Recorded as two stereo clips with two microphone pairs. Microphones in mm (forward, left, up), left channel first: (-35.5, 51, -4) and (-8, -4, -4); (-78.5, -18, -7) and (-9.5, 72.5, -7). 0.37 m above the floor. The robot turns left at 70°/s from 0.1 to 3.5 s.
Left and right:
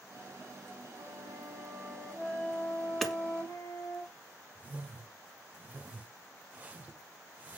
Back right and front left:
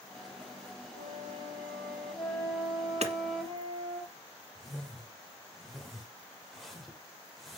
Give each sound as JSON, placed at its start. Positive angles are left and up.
{"t": 0.9, "sound": "a flute", "azimuth_deg": -85, "distance_m": 6.0}
{"t": 3.0, "sound": "hammering", "azimuth_deg": 30, "distance_m": 1.3}
{"t": 4.5, "sound": "a whoosh", "azimuth_deg": -40, "distance_m": 1.3}